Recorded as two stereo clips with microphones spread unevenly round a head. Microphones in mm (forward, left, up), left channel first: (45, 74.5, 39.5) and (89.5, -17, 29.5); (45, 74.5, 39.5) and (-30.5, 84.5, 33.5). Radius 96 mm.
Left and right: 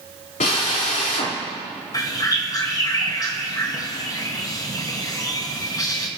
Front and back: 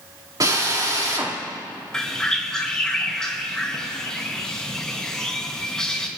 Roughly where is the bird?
Left.